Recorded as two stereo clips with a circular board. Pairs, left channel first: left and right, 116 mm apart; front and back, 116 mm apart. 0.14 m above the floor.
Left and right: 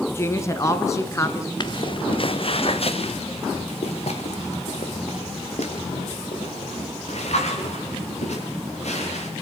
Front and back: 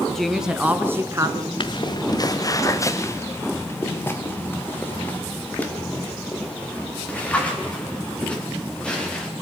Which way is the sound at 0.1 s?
75° left.